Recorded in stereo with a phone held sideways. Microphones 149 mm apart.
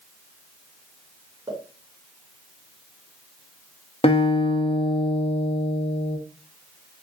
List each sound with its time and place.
1.5 s a pop: 20° right (ahead or behind), 1.9 m
4.0 s a guitar: 45° left (ahead or behind), 0.6 m